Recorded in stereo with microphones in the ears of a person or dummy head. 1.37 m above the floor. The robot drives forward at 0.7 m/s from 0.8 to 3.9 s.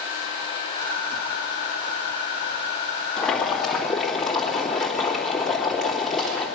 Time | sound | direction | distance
3.2 | boiling | centre (ahead or behind) | 2.0 m